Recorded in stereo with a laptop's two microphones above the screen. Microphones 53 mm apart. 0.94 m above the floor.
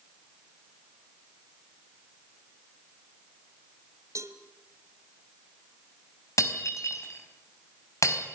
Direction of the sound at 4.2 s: 70° right (ahead or behind).